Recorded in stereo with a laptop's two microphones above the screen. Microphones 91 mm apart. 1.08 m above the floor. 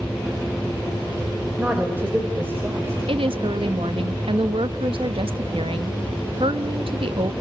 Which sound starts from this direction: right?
A woman speaking, at 3.1 s.